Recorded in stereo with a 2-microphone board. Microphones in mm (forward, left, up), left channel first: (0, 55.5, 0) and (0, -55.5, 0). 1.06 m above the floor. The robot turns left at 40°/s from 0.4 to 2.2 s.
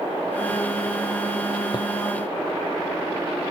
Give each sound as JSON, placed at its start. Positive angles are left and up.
{"t": 1.7, "sound": "footsteps", "side_deg": 40, "distance_m": 1.4}